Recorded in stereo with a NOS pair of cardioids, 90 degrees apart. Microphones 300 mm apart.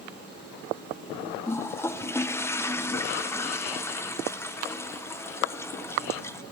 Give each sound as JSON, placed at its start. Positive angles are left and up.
{"t": 1.5, "sound": "a toilet flushing", "azimuth_deg": 10, "distance_m": 0.5}